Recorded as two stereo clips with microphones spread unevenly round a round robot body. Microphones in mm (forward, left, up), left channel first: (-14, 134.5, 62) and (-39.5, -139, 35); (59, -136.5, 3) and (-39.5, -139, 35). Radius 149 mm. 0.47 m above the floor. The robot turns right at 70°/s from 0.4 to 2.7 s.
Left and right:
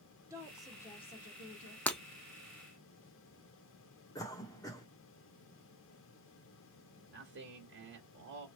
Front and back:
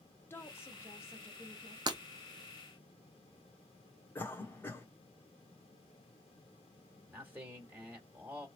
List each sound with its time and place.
0.3 s a woman speaking: 30° right, 1.0 m; by 1.8 s 65° left, 1.0 m
1.9 s breaking glass: 165° left, 0.5 m; by 2.0 s 175° left, 0.5 m
4.2 s a cough: 5° left, 1.0 m
7.1 s a man speaking: 95° right, 1.5 m